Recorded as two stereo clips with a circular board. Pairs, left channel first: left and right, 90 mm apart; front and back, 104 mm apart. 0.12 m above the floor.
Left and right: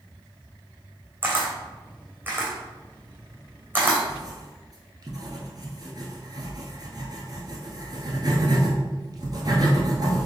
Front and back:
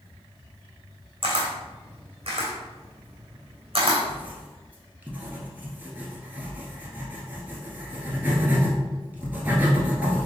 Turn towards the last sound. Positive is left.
turn(degrees=-110)